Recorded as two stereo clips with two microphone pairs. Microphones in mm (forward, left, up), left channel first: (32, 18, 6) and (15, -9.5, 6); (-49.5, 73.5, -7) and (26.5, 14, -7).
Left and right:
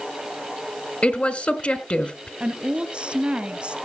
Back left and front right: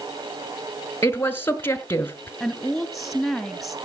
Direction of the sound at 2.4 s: 130° right.